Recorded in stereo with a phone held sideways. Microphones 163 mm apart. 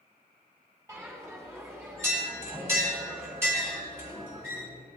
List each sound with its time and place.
0.9 s a bell: 15° right (ahead or behind), 4 m